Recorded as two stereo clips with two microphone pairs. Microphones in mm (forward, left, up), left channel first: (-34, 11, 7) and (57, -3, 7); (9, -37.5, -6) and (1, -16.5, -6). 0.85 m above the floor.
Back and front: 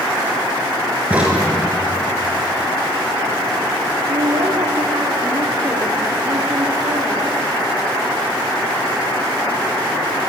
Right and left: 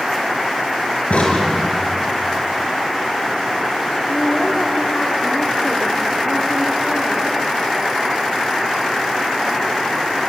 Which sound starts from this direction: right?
A crack, at 1.1 s.